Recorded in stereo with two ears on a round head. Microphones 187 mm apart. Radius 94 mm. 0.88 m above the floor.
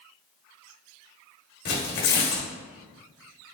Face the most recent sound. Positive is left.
turn(degrees=55)  # may be behind; listen again after turning